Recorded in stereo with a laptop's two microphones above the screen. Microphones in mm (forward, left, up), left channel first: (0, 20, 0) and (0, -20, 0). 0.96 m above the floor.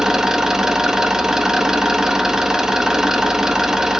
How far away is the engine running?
About 0.9 m.